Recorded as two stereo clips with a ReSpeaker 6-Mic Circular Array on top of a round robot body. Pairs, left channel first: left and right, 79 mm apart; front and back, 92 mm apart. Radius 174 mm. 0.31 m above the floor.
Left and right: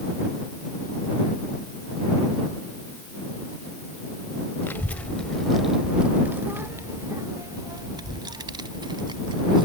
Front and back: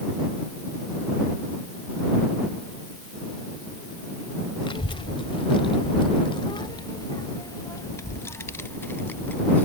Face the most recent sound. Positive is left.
turn(degrees=-70)